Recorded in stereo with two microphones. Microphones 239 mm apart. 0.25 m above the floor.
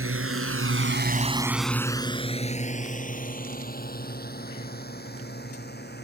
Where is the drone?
65° right (ahead or behind); by 6.0 s 45° left (ahead or behind).